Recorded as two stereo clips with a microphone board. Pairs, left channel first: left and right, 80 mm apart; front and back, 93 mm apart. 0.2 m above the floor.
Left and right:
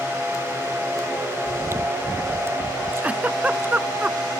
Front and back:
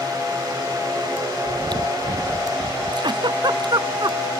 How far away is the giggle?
About 0.7 m.